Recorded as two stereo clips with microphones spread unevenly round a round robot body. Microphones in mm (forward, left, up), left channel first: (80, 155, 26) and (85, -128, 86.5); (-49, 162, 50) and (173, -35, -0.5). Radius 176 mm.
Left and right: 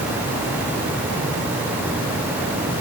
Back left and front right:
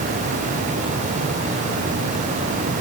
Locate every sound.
Only background noise.